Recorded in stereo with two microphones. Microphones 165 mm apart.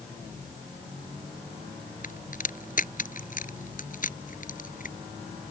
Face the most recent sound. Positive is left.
turn(degrees=55)  # may be behind; listen again after turning